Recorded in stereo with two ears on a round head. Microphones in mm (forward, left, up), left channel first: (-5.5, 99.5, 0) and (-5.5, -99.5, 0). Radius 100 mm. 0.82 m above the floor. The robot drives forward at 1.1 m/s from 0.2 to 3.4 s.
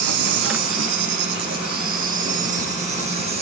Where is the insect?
75° right (ahead or behind), 2 m; by 3.4 s 30° right (ahead or behind), 4.5 m.